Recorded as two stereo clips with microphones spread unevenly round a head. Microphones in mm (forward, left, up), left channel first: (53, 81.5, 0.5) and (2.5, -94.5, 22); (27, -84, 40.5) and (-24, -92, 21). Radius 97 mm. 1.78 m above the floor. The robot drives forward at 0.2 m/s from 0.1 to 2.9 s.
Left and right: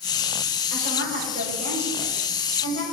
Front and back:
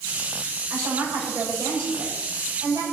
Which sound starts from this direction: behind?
A woman speaking, at 0.7 s.